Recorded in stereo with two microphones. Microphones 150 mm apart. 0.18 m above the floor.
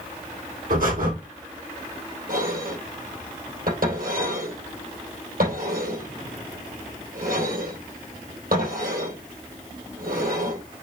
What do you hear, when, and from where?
0.7 s breathing: 70° right (ahead or behind), 3.5 m
2.3 s dishes clattering: 70° right (ahead or behind), 3.5 m